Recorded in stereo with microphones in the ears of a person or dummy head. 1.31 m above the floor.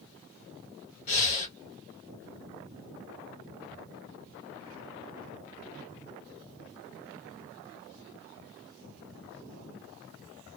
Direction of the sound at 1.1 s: 40° left (ahead or behind).